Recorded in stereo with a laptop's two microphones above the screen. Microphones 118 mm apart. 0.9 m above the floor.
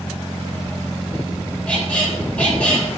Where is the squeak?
10° left (ahead or behind), 3 m.